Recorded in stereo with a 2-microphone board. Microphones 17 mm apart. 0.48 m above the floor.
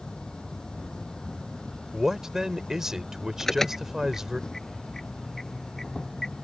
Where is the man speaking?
30° right (ahead or behind).